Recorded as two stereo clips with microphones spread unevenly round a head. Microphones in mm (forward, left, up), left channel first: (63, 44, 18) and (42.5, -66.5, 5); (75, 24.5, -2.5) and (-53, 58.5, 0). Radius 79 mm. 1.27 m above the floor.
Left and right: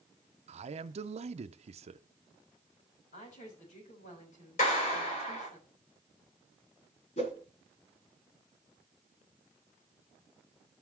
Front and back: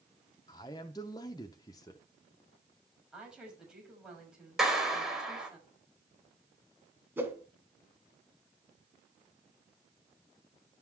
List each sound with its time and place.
0.5 s a man speaking: 85° right, 0.6 m
3.1 s a woman speaking: 80° left, 6.5 m
4.6 s a clap: 80° left, 4 m
7.2 s a whoosh: 95° left, 2.5 m